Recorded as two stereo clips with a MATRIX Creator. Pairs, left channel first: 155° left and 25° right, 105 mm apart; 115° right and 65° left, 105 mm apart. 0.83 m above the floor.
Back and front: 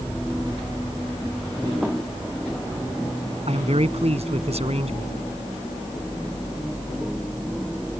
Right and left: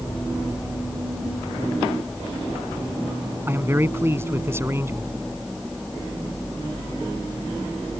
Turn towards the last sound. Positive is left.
turn(degrees=0)